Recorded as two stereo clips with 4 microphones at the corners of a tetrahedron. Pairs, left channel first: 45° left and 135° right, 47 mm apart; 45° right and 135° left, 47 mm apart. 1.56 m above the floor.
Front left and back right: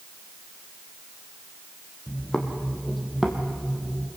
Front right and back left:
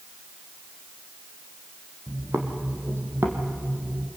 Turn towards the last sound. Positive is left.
turn(degrees=155)